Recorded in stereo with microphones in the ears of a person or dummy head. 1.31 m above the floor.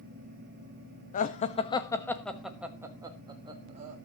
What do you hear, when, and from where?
1.1 s laughter: 45° left (ahead or behind), 1.4 m; by 4.0 s 30° right (ahead or behind), 1.9 m